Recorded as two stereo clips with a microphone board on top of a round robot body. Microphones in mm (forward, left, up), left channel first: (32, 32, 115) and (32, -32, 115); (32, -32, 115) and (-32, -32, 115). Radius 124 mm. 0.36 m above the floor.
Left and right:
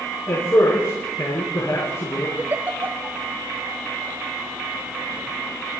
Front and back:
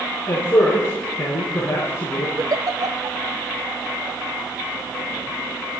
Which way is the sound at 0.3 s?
55° left.